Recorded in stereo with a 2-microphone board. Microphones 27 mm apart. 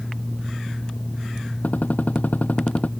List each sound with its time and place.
1.6 s a gunshot: 85° left